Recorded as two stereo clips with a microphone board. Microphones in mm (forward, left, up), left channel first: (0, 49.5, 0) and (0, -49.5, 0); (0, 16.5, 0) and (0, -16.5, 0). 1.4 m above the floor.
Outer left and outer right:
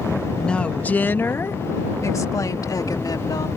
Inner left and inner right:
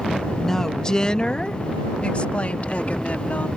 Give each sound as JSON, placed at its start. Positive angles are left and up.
{"t": 0.4, "sound": "a woman speaking", "side_deg": 10}